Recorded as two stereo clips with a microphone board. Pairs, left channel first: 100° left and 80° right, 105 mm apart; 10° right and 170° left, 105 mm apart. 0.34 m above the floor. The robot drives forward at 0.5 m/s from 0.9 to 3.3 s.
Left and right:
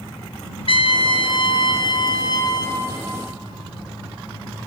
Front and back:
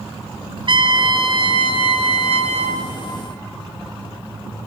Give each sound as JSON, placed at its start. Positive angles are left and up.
{"t": 0.7, "sound": "a trumpet", "azimuth_deg": 130, "distance_m": 1.4}